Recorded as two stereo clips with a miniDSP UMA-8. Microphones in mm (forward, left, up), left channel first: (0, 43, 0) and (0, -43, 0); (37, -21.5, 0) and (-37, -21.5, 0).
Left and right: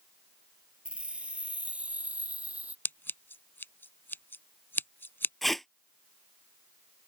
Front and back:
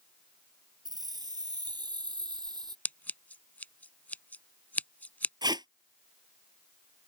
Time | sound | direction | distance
0.8 | keys jangling | 165° right | ?
2.9 | scissors | 50° left | ?
5.4 | tape being pulled | straight behind | ?